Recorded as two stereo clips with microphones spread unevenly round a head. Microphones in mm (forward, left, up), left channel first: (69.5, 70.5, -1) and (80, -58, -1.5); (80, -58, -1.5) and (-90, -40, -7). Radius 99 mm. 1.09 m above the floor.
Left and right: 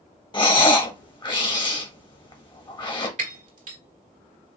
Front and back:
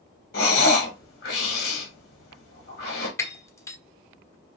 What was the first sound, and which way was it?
Breathing, 40° left.